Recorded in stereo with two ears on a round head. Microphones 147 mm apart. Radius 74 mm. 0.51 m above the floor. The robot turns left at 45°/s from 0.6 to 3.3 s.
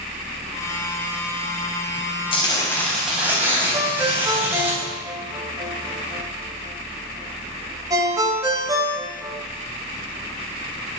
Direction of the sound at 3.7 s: 20° right (ahead or behind).